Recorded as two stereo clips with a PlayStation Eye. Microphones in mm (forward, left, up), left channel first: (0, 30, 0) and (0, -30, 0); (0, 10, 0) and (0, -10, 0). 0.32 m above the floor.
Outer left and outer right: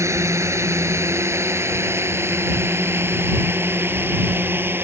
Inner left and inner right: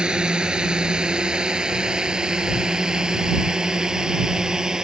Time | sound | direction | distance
0.0 | a drone | 50° right (ahead or behind) | ?